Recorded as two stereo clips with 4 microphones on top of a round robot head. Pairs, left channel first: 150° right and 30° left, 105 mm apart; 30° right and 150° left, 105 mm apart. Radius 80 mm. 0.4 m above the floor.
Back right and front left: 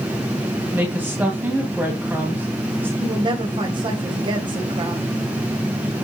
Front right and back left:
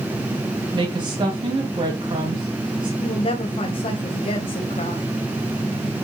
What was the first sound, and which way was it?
A woman speaking, 105° left.